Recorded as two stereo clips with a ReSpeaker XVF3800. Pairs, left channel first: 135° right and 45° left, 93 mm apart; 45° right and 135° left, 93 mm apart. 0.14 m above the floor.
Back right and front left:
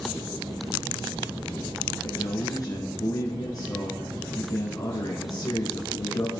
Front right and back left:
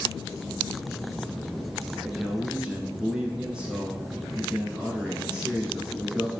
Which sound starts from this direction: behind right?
A man speaking, at 2.0 s.